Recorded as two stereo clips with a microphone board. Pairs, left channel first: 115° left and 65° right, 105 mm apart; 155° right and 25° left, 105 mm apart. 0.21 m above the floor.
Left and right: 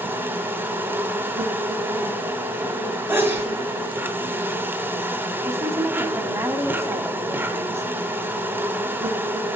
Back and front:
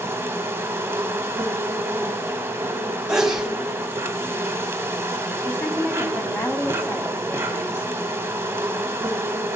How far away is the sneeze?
About 1.4 m.